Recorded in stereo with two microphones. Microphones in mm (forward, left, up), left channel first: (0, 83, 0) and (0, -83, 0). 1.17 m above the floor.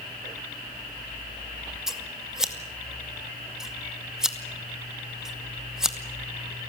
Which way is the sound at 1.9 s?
5° right (ahead or behind).